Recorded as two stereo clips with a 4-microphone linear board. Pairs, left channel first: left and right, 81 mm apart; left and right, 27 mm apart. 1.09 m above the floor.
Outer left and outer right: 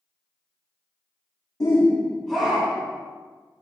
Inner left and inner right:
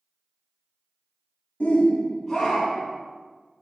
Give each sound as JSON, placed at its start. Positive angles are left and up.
{"t": 1.6, "sound": "a shout", "side_deg": 45, "distance_m": 0.6}